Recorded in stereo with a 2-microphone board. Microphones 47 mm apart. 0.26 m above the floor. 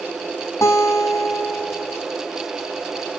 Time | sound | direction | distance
0.6 | a guitar | 80° left | 5 m